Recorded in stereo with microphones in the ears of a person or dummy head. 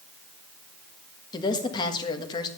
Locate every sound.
1.3 s a woman speaking: 25° left (ahead or behind), 1.5 m